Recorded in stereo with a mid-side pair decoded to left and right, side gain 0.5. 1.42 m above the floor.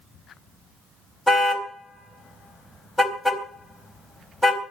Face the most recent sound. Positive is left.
turn(degrees=5)